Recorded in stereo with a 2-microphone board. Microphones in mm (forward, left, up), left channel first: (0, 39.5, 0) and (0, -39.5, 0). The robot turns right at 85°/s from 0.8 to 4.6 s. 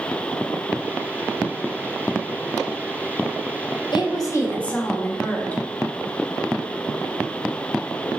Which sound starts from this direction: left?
A woman speaking, at 3.9 s.